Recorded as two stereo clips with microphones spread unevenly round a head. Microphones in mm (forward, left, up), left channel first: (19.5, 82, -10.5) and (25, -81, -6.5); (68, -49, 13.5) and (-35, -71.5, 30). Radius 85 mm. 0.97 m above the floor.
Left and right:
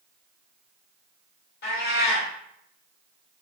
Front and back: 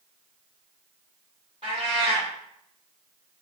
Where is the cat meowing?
130° left, 1.7 m.